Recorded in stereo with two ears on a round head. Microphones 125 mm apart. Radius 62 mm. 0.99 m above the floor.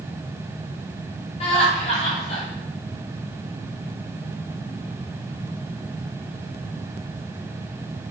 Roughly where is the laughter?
Left.